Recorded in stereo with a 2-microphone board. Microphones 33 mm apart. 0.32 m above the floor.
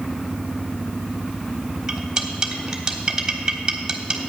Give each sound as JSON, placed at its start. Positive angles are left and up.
{"t": 1.9, "sound": "cutlery clinking", "side_deg": -20, "distance_m": 1.2}